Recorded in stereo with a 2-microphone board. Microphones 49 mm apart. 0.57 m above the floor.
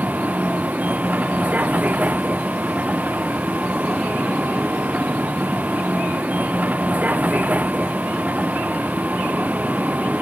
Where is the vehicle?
35° right (ahead or behind).